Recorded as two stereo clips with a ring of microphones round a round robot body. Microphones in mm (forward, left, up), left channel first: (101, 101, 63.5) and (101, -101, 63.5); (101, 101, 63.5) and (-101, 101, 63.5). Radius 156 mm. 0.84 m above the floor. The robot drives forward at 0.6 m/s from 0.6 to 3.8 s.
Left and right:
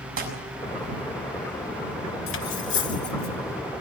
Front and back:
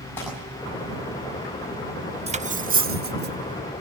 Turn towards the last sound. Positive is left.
turn(degrees=150)